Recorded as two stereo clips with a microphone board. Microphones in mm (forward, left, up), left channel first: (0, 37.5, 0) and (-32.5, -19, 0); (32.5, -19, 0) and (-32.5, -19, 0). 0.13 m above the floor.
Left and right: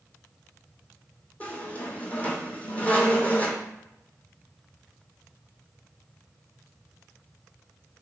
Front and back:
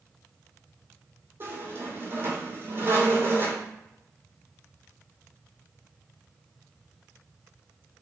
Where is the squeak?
125° left, 1.0 m.